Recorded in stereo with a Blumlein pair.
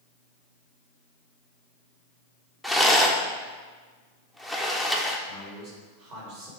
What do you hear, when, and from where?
2.6 s a rattle: 5° right, 0.8 m
5.3 s a man speaking: 40° right, 3 m